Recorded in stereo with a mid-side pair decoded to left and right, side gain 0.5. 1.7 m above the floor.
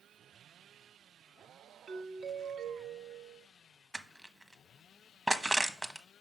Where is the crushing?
10° right, 1.0 m.